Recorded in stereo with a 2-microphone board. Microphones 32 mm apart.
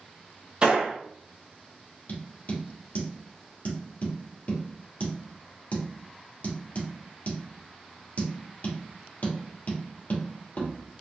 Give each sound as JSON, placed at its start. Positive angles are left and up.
{"t": 0.6, "sound": "a gunshot", "side_deg": -30, "distance_m": 1.5}
{"t": 2.1, "sound": "tapping", "side_deg": 55, "distance_m": 2.5}